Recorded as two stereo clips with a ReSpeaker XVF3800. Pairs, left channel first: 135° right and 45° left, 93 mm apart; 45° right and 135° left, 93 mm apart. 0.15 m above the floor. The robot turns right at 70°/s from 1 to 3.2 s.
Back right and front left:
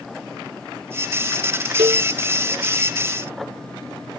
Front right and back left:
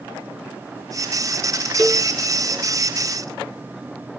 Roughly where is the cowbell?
Ahead left.